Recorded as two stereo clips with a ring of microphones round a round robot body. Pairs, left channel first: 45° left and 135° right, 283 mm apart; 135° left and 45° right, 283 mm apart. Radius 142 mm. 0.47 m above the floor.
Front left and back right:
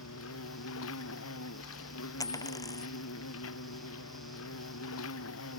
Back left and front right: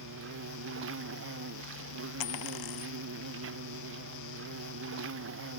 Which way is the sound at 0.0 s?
Straight ahead.